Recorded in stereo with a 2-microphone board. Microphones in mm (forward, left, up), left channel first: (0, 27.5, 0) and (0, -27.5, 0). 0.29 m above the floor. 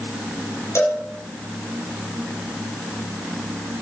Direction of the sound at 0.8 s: 60° left (ahead or behind).